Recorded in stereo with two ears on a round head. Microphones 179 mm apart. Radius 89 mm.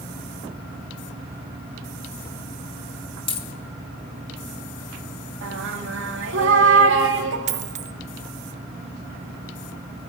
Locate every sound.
3.3 s a dropped coin: 25° left (ahead or behind), 1.9 m
5.4 s singing: 60° right (ahead or behind), 2 m
7.5 s a dropped coin: 35° right (ahead or behind), 1.0 m